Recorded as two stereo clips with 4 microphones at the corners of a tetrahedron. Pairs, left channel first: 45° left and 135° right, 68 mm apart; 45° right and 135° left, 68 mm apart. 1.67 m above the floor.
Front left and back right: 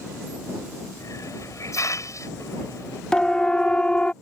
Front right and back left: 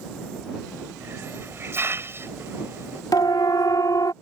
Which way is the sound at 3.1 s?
35° right.